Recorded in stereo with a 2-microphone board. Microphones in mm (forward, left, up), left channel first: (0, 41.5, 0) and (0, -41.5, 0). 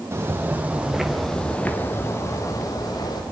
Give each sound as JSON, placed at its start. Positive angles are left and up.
{"t": 0.1, "sound": "footsteps", "side_deg": -35, "distance_m": 2.0}